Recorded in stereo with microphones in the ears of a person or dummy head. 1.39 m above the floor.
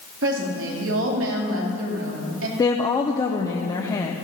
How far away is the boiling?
I don't hear boiling.